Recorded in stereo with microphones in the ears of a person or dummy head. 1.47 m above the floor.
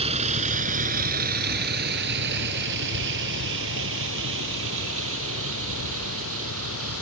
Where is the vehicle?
35° right (ahead or behind); by 7.0 s 75° right (ahead or behind).